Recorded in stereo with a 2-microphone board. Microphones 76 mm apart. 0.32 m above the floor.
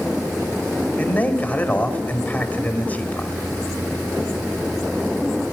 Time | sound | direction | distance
1.0 | a man speaking | 25° left (ahead or behind) | 1.6 m